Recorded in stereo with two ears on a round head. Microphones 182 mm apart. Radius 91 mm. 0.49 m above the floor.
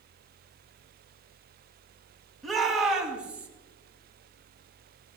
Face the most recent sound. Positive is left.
turn(degrees=-5)  # may be behind; listen again after turning